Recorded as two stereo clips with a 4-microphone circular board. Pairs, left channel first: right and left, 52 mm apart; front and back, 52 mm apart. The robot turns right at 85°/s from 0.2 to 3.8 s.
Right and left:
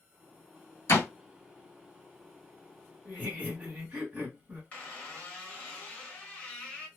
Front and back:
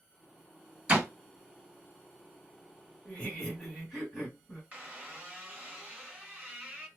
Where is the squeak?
140° right, 1.2 m.